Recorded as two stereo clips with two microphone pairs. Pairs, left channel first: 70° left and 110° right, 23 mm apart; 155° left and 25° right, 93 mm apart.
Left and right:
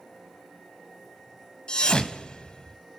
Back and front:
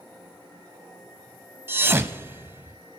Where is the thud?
35° left, 0.9 m.